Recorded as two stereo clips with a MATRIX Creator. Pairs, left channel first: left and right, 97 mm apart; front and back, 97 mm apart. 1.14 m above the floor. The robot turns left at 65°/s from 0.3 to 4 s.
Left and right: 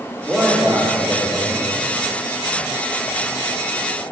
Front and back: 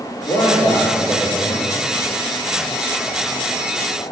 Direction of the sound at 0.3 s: Straight ahead.